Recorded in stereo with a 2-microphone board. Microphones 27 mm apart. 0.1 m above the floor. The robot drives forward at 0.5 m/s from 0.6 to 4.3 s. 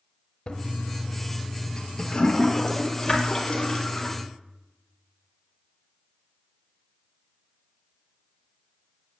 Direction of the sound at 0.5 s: 35° left (ahead or behind).